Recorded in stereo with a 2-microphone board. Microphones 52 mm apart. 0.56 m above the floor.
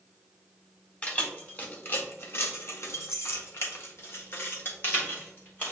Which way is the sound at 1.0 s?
25° left (ahead or behind).